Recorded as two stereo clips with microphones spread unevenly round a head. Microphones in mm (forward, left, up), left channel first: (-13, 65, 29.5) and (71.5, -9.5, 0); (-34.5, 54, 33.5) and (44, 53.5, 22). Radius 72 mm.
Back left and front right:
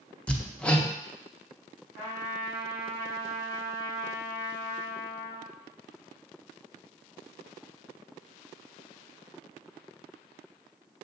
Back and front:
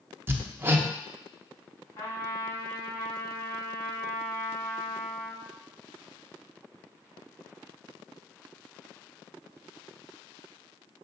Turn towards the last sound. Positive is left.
turn(degrees=-125)